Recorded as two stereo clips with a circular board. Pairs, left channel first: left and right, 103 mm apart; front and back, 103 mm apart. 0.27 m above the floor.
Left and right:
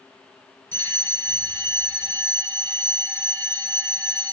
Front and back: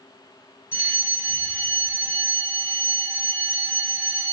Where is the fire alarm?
145° left, 1.9 m.